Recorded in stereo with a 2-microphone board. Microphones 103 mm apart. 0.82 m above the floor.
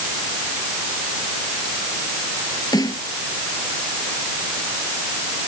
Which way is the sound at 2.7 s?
40° left (ahead or behind).